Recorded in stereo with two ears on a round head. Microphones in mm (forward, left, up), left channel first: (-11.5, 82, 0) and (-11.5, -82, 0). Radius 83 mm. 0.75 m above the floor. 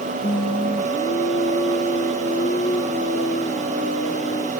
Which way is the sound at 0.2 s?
30° left (ahead or behind).